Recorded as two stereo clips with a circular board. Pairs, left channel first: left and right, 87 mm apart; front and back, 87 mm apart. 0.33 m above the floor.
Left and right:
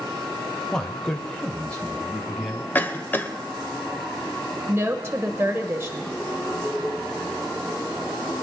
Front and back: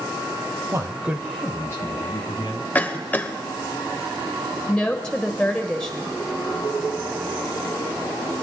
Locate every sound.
0.7 s a man speaking: 170° left, 1.2 m; by 2.6 s 10° left, 2 m
2.8 s a cough: 50° left, 1.0 m
4.7 s a woman speaking: 70° right, 0.9 m